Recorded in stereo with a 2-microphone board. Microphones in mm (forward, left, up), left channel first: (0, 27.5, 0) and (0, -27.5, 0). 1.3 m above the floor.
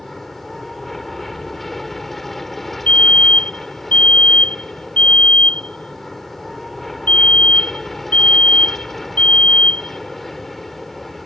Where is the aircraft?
Centre (ahead or behind).